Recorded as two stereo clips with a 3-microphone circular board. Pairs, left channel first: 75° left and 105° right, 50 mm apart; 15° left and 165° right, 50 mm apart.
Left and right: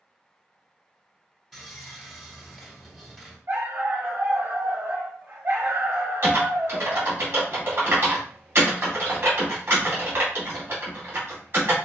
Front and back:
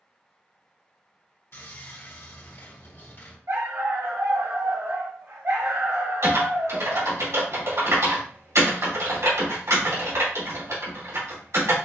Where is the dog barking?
145° right, 1.7 m.